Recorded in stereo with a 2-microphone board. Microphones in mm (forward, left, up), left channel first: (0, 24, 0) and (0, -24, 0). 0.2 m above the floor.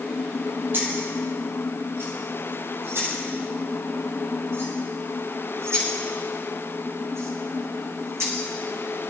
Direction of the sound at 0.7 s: 45° right (ahead or behind).